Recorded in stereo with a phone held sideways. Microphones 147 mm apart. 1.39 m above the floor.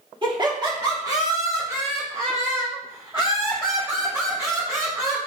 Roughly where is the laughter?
Right.